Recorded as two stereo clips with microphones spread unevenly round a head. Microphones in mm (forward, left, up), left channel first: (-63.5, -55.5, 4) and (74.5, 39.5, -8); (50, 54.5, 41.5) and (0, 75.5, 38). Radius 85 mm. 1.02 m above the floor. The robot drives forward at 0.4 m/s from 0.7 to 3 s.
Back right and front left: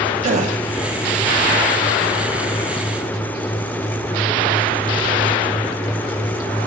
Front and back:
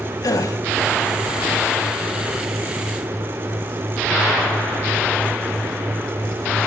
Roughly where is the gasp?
Ahead.